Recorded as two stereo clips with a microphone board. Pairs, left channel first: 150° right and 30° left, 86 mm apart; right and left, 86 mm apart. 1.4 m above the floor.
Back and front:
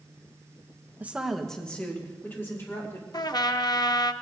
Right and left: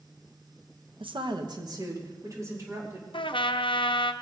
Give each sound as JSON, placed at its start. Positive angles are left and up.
{"t": 1.0, "sound": "a woman speaking", "azimuth_deg": 100, "distance_m": 1.0}
{"t": 3.1, "sound": "a trumpet", "azimuth_deg": -110, "distance_m": 0.6}